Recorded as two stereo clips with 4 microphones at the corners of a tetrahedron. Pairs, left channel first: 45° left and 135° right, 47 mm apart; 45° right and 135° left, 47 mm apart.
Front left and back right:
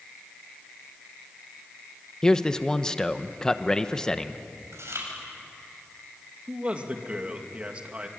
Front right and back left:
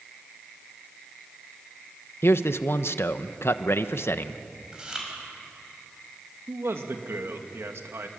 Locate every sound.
2.2 s a man speaking: 35° right, 1.1 m
4.7 s chewing: 155° right, 7 m
6.5 s a man speaking: 155° left, 2.5 m